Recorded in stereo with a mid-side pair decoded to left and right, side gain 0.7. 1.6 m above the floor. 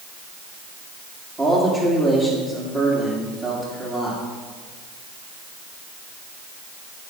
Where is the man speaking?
20° right, 3 m.